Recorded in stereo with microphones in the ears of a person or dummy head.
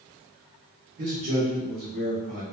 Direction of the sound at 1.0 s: 45° right (ahead or behind).